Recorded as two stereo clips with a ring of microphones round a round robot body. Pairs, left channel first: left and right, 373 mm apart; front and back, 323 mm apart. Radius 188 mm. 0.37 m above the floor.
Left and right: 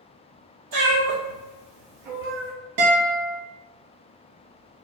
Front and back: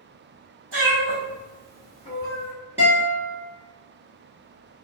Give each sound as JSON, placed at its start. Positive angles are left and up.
{"t": 0.7, "sound": "a cat meowing", "azimuth_deg": -125, "distance_m": 1.6}
{"t": 2.8, "sound": "a guitar", "azimuth_deg": -95, "distance_m": 1.3}